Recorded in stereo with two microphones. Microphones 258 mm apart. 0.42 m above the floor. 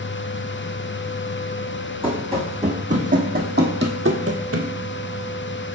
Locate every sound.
2.0 s running footsteps: 20° right (ahead or behind), 1.9 m; by 4.7 s 70° right (ahead or behind), 0.9 m